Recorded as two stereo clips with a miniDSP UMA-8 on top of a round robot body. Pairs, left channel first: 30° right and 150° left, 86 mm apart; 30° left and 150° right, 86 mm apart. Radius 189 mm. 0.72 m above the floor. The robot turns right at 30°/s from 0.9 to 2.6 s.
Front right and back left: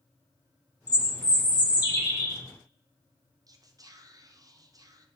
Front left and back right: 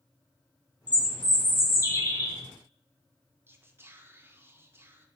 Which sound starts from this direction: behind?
Whispering, at 3.5 s.